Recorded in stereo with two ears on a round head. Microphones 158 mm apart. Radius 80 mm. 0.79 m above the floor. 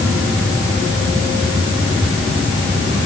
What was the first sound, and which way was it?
Only background noise.